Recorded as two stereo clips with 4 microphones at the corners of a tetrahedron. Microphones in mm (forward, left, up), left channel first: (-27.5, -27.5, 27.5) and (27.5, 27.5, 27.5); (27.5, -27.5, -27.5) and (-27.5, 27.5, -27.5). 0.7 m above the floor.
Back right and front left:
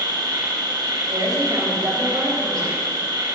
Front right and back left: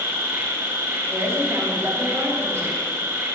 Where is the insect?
75° left, 3.5 m.